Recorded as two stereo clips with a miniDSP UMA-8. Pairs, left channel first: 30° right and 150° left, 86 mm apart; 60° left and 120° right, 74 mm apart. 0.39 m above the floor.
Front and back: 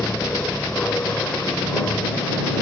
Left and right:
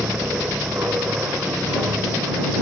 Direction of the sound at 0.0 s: 90° right.